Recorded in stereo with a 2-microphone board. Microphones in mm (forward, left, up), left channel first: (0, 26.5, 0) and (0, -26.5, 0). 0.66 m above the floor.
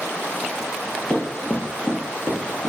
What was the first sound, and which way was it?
Running footsteps, 20° left (ahead or behind).